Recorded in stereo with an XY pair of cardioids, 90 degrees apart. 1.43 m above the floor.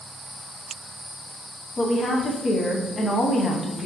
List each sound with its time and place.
1.8 s a woman speaking: 45° left, 0.5 m